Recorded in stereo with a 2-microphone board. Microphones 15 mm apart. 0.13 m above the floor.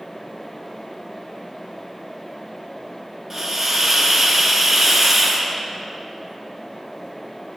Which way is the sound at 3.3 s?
20° right (ahead or behind).